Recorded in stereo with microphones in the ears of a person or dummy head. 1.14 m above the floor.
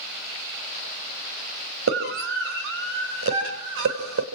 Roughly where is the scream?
Right.